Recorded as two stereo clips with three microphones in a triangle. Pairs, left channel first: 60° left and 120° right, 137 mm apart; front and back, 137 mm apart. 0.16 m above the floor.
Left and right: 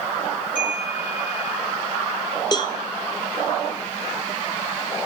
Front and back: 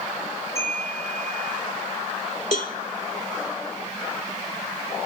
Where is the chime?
70° left, 4 m.